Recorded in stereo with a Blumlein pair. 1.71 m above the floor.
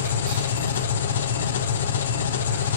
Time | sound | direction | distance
0.0 | an engine running | 65° left | 0.9 m